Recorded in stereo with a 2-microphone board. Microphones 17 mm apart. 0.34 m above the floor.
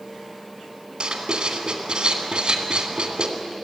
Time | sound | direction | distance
1.0 | writing | 70° right (ahead or behind) | 2.5 m